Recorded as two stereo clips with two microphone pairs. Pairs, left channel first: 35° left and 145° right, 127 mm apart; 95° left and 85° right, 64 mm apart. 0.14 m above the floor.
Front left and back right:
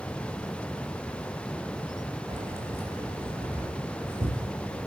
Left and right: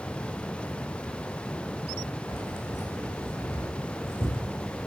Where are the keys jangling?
150° left, 5.5 m; by 4.9 s 135° left, 6 m.